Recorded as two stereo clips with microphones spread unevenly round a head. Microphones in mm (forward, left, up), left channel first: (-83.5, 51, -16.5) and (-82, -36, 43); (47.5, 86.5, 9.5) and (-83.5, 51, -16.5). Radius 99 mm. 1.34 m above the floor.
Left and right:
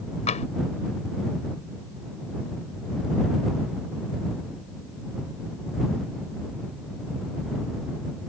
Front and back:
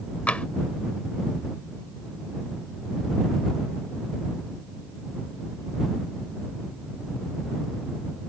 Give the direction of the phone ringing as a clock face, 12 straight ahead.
I don't hear a phone ringing.